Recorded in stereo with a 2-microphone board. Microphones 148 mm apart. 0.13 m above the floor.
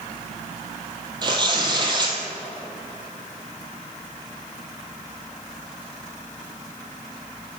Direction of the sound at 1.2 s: 30° right (ahead or behind).